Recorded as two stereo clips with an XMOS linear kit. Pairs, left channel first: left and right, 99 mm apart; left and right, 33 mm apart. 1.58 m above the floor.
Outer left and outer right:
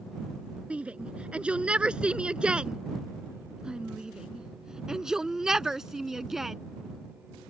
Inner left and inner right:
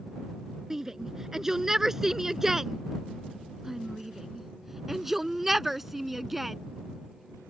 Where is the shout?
15° right (ahead or behind); by 6.6 s 5° right (ahead or behind).